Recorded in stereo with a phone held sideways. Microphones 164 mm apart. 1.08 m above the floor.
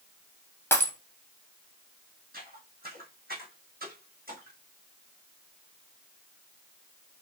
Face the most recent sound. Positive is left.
turn(degrees=-65)  # may be behind; listen again after turning